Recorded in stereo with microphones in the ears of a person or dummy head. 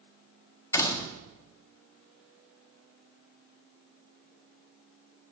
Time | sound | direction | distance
0.7 | a door slam | 15° left (ahead or behind) | 1.4 m